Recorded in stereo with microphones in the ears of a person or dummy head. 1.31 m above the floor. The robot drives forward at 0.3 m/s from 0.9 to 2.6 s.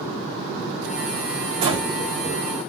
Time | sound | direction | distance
1.6 | breathing | 25° right (ahead or behind) | 1.0 m